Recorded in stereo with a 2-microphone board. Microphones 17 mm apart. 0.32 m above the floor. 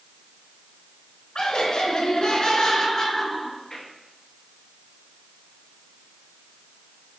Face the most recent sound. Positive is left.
turn(degrees=15)  # may be behind; listen again after turning